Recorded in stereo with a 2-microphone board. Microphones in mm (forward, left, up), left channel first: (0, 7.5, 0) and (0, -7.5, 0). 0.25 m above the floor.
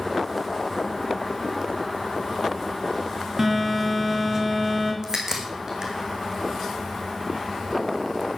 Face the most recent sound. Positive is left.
turn(degrees=-45)  # may be behind; listen again after turning